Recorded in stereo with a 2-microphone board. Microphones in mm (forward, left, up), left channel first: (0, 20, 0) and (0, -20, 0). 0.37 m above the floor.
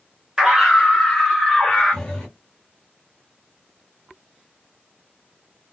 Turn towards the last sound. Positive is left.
turn(degrees=15)  # may be behind; listen again after turning